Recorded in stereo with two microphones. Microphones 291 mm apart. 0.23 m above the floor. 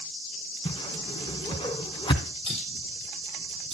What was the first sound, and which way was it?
A whoosh, 15° left (ahead or behind).